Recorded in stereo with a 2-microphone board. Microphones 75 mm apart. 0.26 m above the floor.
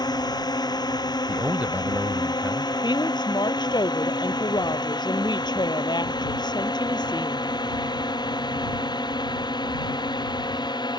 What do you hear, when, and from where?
0.0 s a drone: 65° left (ahead or behind); by 11.0 s 70° left (ahead or behind)
1.3 s a man speaking: 20° right (ahead or behind)
2.8 s a woman speaking: 75° left (ahead or behind)